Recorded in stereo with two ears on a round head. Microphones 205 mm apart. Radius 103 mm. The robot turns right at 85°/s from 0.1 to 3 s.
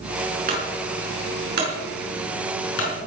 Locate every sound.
0.5 s a clunk: 40° right (ahead or behind), 6.5 m; by 2.9 s 65° left (ahead or behind), 6.5 m